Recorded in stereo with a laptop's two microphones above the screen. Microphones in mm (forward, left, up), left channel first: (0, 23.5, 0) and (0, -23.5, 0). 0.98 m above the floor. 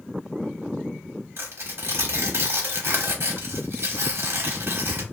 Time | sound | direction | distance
1.4 | tearing paper | 60° right (ahead or behind) | 1.0 m